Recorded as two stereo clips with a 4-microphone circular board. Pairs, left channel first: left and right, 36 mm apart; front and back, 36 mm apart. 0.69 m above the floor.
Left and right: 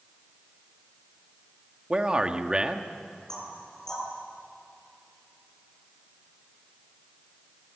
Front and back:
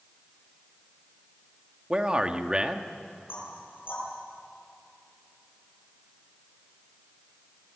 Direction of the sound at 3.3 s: 20° left.